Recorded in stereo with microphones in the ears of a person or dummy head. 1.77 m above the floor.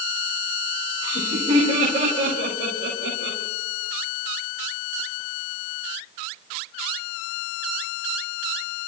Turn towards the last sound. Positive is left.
turn(degrees=-60)  # may be behind; listen again after turning